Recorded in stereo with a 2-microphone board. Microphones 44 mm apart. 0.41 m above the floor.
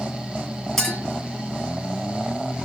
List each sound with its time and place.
0.8 s a clink: 5° left (ahead or behind), 3.5 m